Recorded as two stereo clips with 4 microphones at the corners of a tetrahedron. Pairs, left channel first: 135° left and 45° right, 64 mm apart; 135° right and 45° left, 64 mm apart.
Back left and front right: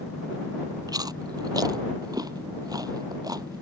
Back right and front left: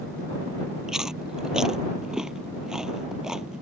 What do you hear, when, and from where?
0.9 s chewing: 35° right